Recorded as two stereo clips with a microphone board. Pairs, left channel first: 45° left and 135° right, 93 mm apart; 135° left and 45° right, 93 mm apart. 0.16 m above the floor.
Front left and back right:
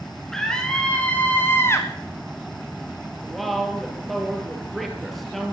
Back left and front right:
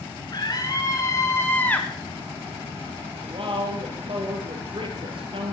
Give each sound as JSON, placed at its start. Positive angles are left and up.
{"t": 0.3, "sound": "a scream", "azimuth_deg": 130, "distance_m": 1.8}
{"t": 3.2, "sound": "a woman speaking", "azimuth_deg": -40, "distance_m": 3.5}